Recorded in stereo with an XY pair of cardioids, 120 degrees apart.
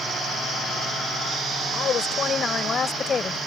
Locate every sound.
1.7 s a woman speaking: 45° left; by 3.4 s 30° left